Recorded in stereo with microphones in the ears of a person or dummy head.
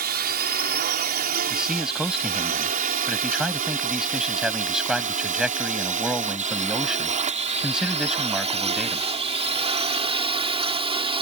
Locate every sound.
0.0 s a drone: 55° right (ahead or behind); by 11.2 s 35° right (ahead or behind)
1.5 s a man speaking: 5° right (ahead or behind)